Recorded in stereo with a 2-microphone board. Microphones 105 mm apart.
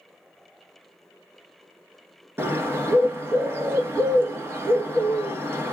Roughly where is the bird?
Right.